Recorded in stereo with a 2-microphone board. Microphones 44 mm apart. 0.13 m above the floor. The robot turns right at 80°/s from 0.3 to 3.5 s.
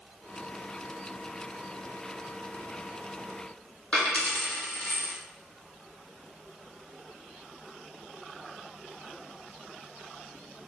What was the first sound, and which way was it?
A dropped coin, 25° left (ahead or behind).